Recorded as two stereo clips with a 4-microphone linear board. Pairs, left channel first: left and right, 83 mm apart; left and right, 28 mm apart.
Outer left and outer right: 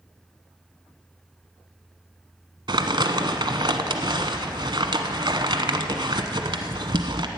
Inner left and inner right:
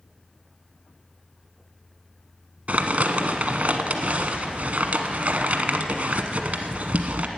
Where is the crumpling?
65° right (ahead or behind), 1.0 m.